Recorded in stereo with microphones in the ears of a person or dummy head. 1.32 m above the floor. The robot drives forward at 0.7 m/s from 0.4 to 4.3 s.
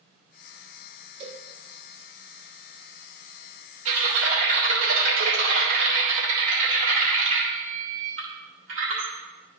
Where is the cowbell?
30° right (ahead or behind), 1.1 m; by 1.4 s 35° right (ahead or behind), 1.0 m.